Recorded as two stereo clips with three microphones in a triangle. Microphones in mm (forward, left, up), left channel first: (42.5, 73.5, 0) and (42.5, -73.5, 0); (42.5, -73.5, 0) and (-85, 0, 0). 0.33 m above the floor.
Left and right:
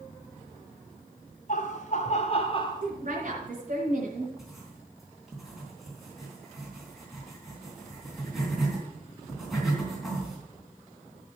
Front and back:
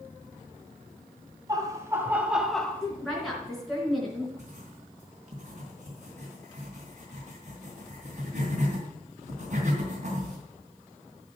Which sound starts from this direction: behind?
Writing, at 4.4 s.